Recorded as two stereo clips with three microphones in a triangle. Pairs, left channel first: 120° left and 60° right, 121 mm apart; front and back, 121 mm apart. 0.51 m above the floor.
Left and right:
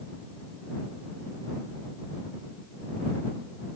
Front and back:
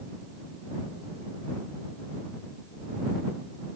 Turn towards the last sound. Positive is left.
No sound to turn to.